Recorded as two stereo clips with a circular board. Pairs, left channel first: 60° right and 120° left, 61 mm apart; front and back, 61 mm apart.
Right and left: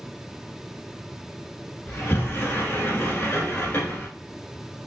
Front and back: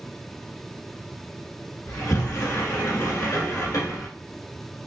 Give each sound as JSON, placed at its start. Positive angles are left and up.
{"t": 1.9, "sound": "a sliding door", "azimuth_deg": -10, "distance_m": 1.1}